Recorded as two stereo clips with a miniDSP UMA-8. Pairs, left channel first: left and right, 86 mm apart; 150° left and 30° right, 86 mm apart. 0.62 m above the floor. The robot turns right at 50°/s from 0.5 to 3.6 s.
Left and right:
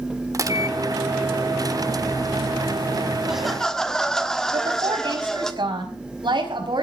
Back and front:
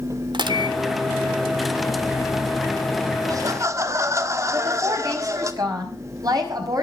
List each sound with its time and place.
0.3 s a microwave: 45° right, 1.1 m; by 3.1 s 85° left, 1.1 m
3.2 s laughter: 10° right, 1.3 m; by 5.5 s 10° left, 1.3 m
4.5 s a woman speaking: 70° right, 5 m